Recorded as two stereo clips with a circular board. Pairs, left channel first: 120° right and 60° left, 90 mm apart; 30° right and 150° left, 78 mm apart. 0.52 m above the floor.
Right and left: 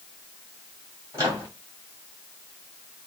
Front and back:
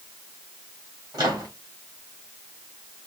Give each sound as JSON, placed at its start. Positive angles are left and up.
{"t": 1.1, "sound": "a microwave", "azimuth_deg": 115, "distance_m": 2.5}